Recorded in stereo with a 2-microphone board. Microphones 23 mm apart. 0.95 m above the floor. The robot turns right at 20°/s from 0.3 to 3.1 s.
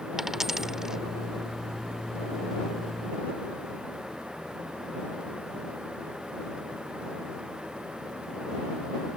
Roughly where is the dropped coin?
Centre.